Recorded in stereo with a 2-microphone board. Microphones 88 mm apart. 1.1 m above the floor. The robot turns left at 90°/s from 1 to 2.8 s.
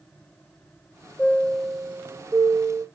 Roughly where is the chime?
Ahead left.